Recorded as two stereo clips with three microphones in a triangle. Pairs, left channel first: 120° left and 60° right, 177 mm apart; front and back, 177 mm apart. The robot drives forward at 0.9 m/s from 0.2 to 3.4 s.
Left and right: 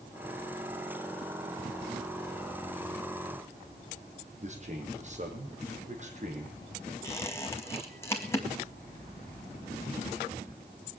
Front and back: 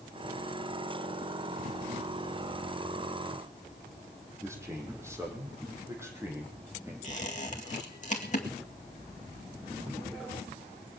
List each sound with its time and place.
4.4 s a man speaking: 105° right, 4 m
7.0 s a squeak: 45° left, 2.0 m